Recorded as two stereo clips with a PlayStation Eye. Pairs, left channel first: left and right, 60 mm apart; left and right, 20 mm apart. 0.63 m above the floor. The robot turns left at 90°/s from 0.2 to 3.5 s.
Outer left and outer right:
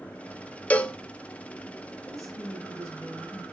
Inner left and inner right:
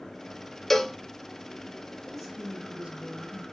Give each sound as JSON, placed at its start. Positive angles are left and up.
{"t": 0.7, "sound": "a cowbell", "side_deg": 20, "distance_m": 0.6}
{"t": 2.0, "sound": "a woman speaking", "azimuth_deg": 20, "distance_m": 5.5}